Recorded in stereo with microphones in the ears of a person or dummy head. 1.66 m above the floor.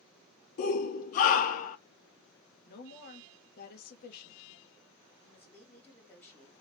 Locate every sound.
0.6 s a shout: 40° left (ahead or behind), 0.5 m
2.7 s a woman speaking: 50° left (ahead or behind), 0.7 m
5.2 s a woman speaking: 10° left (ahead or behind), 1.3 m